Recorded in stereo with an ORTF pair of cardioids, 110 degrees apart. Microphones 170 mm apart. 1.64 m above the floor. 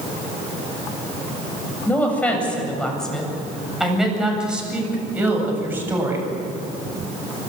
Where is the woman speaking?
10° left, 7.5 m; by 6.3 s 15° right, 8.5 m.